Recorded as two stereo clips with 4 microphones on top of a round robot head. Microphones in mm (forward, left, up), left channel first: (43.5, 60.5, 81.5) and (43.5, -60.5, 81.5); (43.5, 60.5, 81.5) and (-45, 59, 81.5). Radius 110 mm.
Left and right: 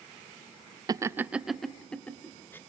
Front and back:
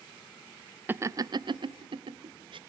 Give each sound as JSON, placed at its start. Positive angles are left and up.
{"t": 0.9, "sound": "laughter", "azimuth_deg": -125, "distance_m": 1.0}